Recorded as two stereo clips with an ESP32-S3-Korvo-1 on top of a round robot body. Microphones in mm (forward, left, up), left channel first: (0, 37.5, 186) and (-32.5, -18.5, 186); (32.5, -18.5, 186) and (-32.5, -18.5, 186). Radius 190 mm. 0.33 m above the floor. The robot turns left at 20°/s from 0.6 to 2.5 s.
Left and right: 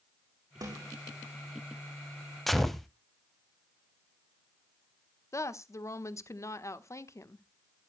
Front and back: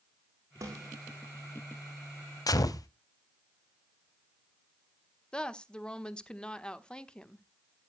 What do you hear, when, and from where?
0.6 s a snare drum: 140° right, 8 m; by 0.9 s 150° right, 8 m
2.5 s a gunshot: 25° right, 1.0 m
5.3 s a woman speaking: 70° left, 1.4 m